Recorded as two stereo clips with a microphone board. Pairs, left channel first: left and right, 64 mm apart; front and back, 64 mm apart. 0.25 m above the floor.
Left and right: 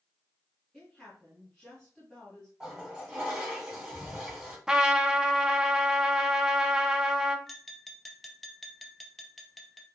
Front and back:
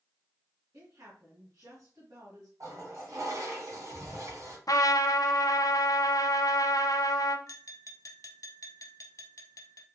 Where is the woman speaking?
Straight behind, 2 m.